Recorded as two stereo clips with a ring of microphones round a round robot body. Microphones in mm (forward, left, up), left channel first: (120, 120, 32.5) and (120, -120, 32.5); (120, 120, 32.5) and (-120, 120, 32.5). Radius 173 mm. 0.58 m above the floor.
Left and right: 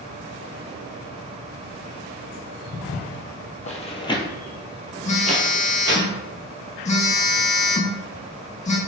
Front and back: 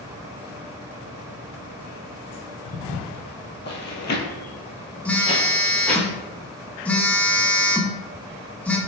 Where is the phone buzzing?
80° left, 0.6 m.